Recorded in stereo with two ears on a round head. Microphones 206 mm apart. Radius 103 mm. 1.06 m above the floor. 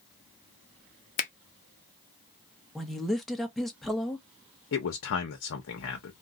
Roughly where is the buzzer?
I don't hear a buzzer.